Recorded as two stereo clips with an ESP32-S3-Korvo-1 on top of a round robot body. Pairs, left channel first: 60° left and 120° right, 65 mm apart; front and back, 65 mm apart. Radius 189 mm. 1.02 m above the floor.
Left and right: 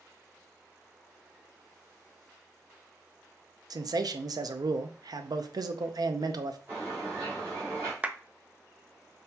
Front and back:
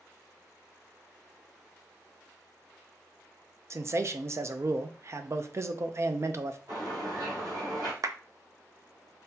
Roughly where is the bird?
Behind.